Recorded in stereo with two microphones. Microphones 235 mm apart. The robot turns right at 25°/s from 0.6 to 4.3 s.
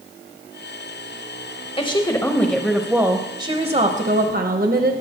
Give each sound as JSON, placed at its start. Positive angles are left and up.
{"t": 1.8, "sound": "a woman speaking", "azimuth_deg": 155, "distance_m": 0.9}